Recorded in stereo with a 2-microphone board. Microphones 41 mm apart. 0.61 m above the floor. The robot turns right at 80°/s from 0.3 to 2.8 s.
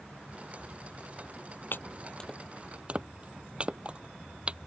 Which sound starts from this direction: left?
Chopping, at 1.7 s.